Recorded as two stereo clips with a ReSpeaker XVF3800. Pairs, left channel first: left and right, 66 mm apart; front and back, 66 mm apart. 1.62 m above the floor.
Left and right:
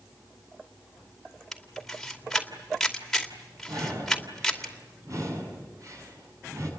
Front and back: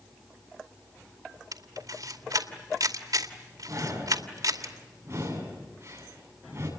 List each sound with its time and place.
1.5 s a camera shutter: 175° left, 2.5 m
3.7 s breathing: 125° right, 7.5 m